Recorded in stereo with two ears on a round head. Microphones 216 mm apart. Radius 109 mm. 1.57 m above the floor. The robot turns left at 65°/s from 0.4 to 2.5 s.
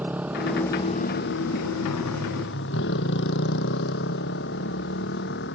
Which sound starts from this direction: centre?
A motorcycle, at 0.0 s.